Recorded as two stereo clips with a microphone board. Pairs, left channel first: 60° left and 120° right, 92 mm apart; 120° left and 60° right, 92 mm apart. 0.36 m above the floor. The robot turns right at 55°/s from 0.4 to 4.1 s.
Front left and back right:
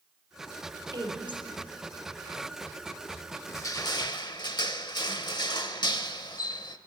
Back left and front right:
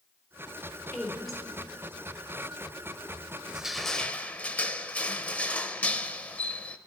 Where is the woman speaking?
170° right, 3.5 m; by 1.4 s 140° right, 3.5 m.